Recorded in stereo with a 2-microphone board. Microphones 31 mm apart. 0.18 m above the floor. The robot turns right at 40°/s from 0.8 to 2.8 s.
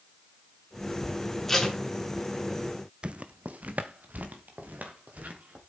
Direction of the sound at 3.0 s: 40° right (ahead or behind).